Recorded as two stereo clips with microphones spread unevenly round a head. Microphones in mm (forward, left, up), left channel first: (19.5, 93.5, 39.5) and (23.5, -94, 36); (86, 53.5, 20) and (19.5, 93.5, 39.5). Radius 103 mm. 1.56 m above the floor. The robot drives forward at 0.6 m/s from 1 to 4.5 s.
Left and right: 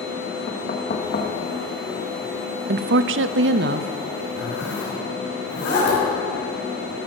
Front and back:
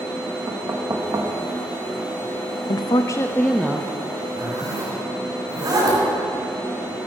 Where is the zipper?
125° left, 5.5 m.